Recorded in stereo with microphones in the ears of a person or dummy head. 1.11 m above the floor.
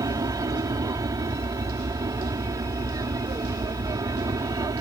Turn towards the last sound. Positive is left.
turn(degrees=-20)  # may be behind; listen again after turning